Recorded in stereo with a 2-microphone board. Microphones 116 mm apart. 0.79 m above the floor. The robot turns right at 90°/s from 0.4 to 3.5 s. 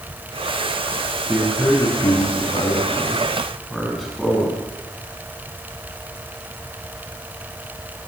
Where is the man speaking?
20° right, 7.5 m; by 4.6 s straight behind, 7.5 m.